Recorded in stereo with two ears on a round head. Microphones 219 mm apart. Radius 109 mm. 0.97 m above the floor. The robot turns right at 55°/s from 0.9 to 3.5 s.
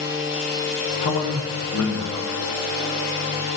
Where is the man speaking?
55° left, 1.0 m; by 2.3 s 120° left, 1.0 m.